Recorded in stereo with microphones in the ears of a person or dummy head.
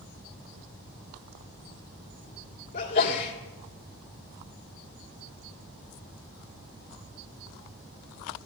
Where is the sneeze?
50° left (ahead or behind), 1.8 m.